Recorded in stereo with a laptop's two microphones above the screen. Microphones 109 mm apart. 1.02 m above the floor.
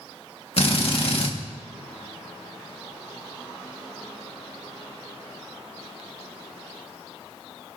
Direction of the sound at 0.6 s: 60° left (ahead or behind).